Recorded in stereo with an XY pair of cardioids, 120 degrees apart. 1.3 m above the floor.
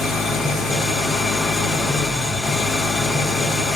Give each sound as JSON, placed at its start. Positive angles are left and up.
{"t": 0.0, "sound": "an engine running", "azimuth_deg": 40, "distance_m": 2.5}